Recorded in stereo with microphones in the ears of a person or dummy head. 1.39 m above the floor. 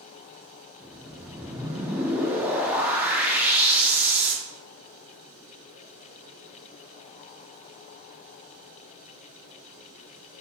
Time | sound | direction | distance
0.8 | a whoosh | 10° right (ahead or behind) | 0.8 m